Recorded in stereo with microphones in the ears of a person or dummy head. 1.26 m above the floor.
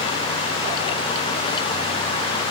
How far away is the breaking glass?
I don't hear breaking glass.